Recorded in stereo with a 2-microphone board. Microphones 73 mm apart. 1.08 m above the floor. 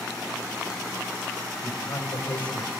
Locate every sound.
1.6 s a man speaking: 60° left (ahead or behind), 5 m; by 2.7 s 80° left, 4.5 m